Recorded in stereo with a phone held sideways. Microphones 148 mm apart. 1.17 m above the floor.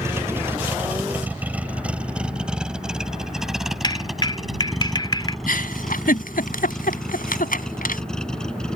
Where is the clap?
35° left (ahead or behind).